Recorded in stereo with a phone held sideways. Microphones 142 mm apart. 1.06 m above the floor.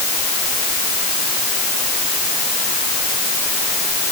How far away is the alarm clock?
No alarm clock in this recording.